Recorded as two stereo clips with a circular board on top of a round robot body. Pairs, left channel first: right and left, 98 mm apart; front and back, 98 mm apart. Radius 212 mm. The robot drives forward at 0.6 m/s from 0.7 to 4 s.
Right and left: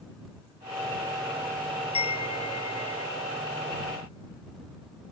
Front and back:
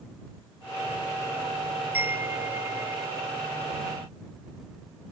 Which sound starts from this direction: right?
A chime, at 1.9 s.